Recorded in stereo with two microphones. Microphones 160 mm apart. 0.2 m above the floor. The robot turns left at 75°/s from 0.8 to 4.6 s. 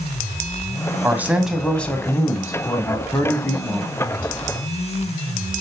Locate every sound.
1.0 s a man speaking: 15° right (ahead or behind), 1.0 m; by 3.9 s centre (ahead or behind), 1.0 m